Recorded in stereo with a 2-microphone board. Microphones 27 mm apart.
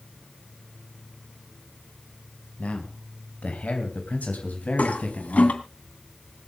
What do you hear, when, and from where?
2.6 s a man speaking: 60° left (ahead or behind), 2.5 m; by 5.6 s 65° left (ahead or behind), 4.5 m
4.8 s a toilet flushing: 65° left (ahead or behind), 2.5 m